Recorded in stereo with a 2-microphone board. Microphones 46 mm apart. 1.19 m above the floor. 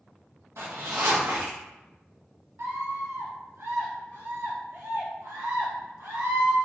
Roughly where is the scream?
Right.